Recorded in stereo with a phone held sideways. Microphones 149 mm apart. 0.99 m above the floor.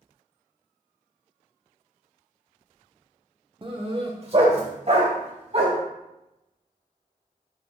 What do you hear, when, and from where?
3.6 s a dog barking: 35° right (ahead or behind), 1.0 m; by 5.8 s 50° right (ahead or behind), 3 m